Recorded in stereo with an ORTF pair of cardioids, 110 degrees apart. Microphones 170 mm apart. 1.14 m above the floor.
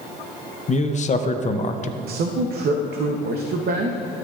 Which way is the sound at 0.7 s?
45° left.